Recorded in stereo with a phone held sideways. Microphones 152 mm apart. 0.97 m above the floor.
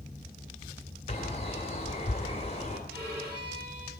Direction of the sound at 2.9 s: 85° right.